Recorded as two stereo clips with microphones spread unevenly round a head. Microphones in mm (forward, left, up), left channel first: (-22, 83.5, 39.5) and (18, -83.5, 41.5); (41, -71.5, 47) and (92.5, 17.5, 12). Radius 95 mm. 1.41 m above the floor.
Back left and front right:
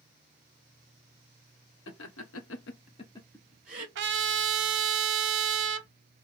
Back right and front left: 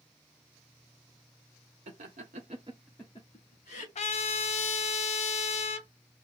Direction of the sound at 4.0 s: 100° right.